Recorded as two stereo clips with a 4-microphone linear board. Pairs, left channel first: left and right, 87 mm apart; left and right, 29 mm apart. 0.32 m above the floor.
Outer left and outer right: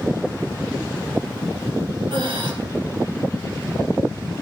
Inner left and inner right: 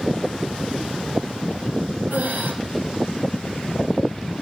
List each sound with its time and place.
2.1 s breathing: 65° right (ahead or behind), 3.5 m